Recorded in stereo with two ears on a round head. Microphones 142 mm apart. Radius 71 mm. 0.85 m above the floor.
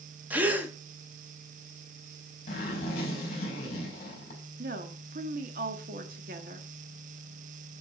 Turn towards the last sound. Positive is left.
turn(degrees=-60)  # may be behind; listen again after turning